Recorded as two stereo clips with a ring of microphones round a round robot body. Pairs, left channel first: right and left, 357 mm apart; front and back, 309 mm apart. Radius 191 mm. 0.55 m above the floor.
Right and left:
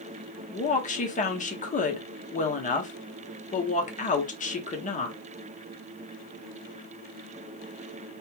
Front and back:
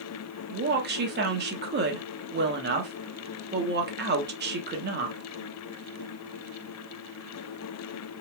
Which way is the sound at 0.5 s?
145° right.